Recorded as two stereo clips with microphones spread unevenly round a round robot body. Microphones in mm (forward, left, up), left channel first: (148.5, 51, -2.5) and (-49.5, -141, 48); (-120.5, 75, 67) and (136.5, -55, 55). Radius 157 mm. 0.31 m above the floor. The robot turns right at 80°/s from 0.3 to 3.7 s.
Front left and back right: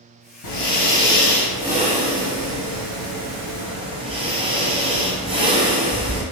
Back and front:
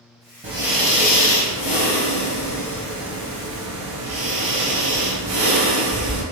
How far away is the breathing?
About 1.1 m.